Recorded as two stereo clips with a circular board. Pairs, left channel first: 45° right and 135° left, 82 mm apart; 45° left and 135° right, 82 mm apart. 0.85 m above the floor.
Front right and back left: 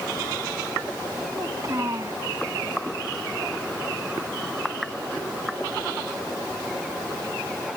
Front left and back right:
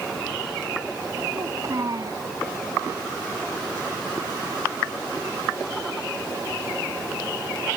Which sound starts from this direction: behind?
A child speaking, at 1.3 s.